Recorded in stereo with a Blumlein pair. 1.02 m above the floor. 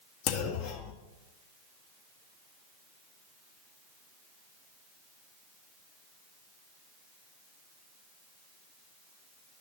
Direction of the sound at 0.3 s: 40° left.